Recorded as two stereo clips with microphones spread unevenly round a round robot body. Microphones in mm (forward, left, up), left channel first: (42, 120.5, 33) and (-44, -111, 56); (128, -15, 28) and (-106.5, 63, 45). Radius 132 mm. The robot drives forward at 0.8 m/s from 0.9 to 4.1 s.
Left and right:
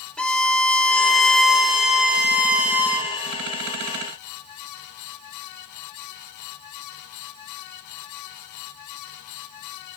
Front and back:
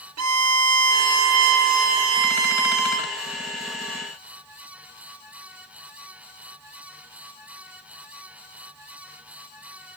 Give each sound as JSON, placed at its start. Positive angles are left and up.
{"t": 0.2, "sound": "a violin", "azimuth_deg": 155, "distance_m": 2.0}